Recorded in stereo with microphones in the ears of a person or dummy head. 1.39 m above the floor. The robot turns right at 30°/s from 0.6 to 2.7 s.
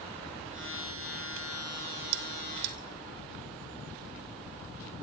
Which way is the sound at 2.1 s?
60° right (ahead or behind).